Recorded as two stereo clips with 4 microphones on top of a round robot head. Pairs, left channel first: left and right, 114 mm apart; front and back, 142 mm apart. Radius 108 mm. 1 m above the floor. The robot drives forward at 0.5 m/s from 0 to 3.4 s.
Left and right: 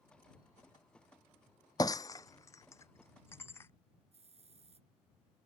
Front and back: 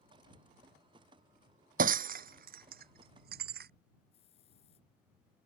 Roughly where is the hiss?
Ahead right.